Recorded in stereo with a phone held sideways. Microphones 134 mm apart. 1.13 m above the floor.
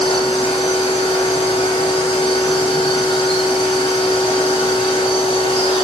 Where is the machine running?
40° left (ahead or behind), 1.3 m.